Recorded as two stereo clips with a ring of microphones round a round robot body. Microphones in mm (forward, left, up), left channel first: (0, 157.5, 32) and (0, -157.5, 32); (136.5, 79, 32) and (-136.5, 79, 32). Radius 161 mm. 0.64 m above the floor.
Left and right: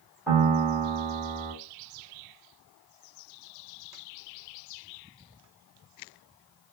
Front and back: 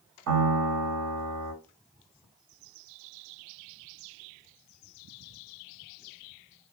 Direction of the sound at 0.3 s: 175° right.